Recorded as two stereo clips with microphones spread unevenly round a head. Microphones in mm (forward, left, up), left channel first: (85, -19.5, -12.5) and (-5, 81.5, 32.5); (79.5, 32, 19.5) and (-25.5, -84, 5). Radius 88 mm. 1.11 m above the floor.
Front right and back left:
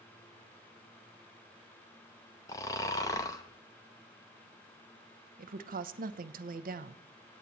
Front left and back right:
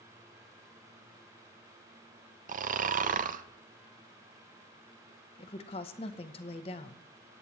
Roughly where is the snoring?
Right.